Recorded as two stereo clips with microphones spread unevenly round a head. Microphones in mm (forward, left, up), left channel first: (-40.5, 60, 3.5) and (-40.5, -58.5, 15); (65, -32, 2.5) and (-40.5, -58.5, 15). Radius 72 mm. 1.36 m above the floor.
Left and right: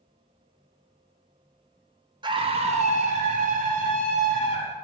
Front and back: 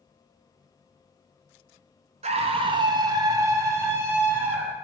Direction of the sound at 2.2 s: 140° right.